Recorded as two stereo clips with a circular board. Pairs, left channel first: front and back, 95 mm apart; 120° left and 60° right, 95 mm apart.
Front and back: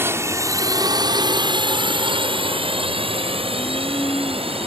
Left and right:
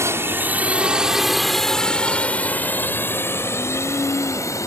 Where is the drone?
120° right; by 4.7 s 175° left.